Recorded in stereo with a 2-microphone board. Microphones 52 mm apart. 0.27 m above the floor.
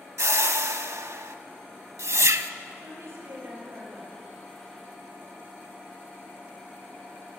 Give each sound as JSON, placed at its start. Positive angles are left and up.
{"t": 0.2, "sound": "a whoosh", "side_deg": -65, "distance_m": 0.5}
{"t": 2.8, "sound": "a woman speaking", "side_deg": -55, "distance_m": 5.0}